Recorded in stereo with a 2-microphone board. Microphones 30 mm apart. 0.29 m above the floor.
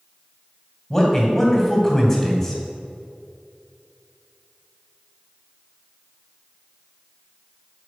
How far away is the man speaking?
About 2 m.